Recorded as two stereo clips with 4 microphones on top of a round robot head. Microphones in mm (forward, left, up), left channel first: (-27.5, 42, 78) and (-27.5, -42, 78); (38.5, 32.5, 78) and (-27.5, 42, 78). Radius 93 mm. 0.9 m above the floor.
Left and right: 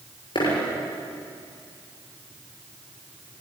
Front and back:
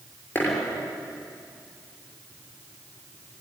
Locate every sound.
0.3 s a dropped coin: 50° left, 6.5 m